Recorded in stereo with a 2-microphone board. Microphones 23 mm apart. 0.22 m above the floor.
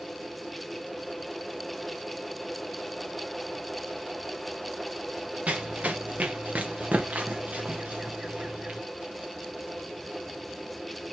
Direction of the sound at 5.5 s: 70° right (ahead or behind).